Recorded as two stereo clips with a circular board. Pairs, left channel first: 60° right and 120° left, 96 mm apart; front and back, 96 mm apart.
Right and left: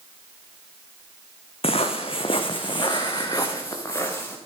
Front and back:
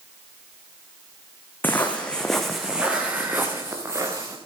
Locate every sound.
1.6 s footsteps: 70° right, 1.8 m; by 4.4 s 125° right, 2.5 m